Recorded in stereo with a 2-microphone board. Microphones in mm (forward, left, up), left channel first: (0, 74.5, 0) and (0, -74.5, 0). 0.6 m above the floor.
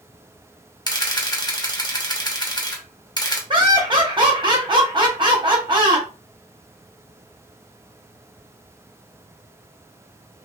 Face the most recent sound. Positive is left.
turn(degrees=-35)  # may be behind; listen again after turning